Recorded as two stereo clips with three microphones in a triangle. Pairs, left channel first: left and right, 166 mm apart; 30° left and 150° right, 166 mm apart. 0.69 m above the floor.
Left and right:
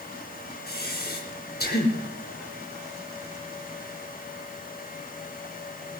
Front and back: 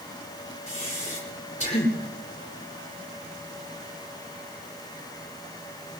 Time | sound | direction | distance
0.7 | breathing | 75° left | 4.5 m